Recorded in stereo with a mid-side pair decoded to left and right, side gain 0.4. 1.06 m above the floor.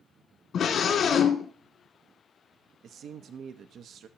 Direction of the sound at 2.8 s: 70° right.